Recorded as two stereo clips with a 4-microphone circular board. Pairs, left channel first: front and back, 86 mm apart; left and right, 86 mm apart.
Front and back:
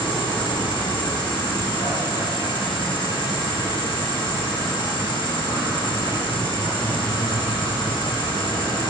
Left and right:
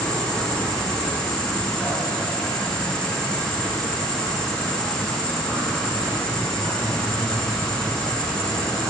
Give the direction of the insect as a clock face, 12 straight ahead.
12 o'clock.